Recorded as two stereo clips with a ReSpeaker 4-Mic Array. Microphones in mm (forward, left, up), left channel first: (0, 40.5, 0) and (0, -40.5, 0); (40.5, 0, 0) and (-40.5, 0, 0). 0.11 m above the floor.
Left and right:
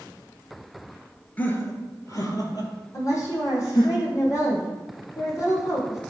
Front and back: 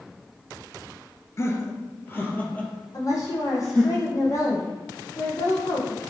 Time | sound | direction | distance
1.4 | laughter | 30° left | 1.5 m
2.9 | a woman speaking | 45° left | 4 m